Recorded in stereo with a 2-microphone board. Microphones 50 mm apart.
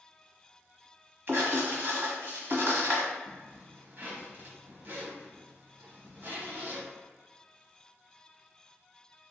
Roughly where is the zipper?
Right.